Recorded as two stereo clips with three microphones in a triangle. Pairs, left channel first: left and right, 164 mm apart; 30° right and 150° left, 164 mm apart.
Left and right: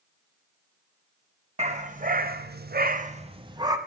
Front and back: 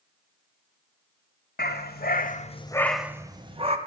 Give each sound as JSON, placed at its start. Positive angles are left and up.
{"t": 1.6, "sound": "a dog barking", "azimuth_deg": -40, "distance_m": 1.2}